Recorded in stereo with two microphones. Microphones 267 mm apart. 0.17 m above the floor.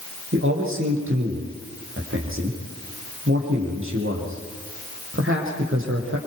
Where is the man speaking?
50° right (ahead or behind), 6 m.